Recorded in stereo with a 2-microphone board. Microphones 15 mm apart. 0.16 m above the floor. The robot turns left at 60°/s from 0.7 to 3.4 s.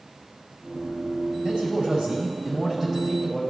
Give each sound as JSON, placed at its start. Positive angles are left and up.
{"t": 1.4, "sound": "a man speaking", "azimuth_deg": -60, "distance_m": 5.0}